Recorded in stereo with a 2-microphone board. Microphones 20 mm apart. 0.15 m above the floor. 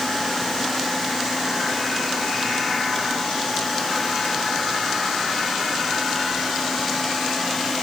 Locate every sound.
Only background noise.